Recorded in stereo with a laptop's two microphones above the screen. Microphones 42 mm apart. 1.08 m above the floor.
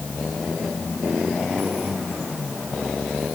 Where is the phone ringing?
No phone ringing in this recording.